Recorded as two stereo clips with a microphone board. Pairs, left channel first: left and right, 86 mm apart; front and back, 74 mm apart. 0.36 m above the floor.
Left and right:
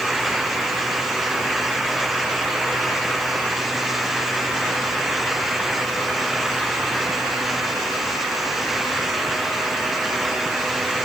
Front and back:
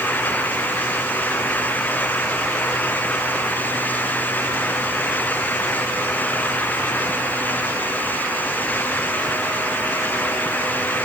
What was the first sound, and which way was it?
Only background noise.